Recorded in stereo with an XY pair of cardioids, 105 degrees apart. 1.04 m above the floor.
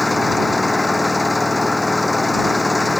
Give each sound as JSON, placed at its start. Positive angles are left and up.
{"t": 0.0, "sound": "an engine running", "azimuth_deg": 15}